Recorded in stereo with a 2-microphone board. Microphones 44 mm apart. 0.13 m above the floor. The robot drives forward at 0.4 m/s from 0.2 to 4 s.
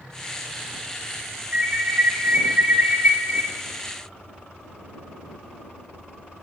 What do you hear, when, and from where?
1.5 s an alarm: 40° right (ahead or behind), 1.7 m; by 3.4 s 45° right (ahead or behind), 1.5 m